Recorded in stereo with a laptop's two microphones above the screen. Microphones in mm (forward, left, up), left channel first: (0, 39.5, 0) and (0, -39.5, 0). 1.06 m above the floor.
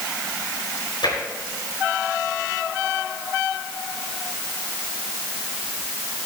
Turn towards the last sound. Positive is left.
turn(degrees=70)  # may be behind; listen again after turning